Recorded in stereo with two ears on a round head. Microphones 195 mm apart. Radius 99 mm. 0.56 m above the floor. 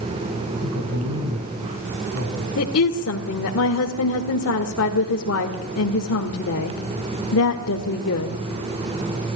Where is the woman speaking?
65° left (ahead or behind), 1.7 m.